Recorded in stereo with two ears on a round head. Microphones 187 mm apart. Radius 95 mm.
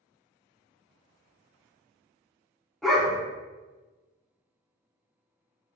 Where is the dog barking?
Centre (ahead or behind), 0.8 m.